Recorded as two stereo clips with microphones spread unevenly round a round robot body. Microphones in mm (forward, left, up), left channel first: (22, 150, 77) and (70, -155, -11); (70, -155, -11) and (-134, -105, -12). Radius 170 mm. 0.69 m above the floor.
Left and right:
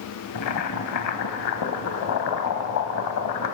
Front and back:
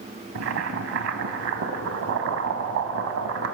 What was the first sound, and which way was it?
Boiling, 140° left.